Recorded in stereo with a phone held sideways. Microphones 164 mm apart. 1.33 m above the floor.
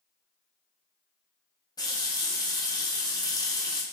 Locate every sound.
1.8 s a running tap: 20° left (ahead or behind), 0.6 m